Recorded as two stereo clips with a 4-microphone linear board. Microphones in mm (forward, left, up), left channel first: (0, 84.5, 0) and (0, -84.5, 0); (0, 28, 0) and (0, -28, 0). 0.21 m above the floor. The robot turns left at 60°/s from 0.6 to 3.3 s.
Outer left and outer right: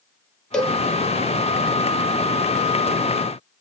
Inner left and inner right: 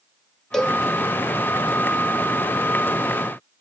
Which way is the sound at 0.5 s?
5° left (ahead or behind).